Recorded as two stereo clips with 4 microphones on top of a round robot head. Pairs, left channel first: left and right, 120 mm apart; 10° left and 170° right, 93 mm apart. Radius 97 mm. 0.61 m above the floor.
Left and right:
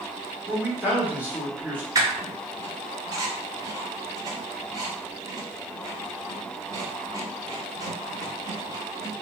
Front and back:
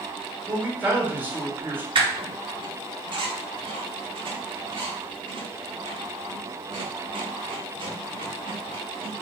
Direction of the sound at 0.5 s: 140° right.